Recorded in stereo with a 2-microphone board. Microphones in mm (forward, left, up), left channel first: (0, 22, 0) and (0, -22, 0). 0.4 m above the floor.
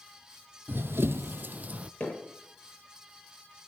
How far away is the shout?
No shout in this recording.